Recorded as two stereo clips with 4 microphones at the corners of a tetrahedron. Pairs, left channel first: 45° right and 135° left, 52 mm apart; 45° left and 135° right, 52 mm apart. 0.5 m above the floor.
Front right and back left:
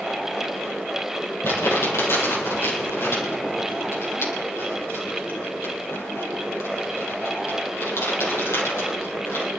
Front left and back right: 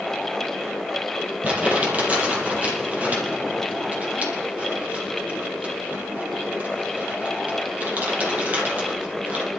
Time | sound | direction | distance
1.4 | crumpling | 75° right | 5.5 m